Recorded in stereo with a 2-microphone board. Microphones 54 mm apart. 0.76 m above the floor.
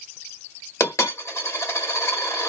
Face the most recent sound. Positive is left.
turn(degrees=55)  # may be behind; listen again after turning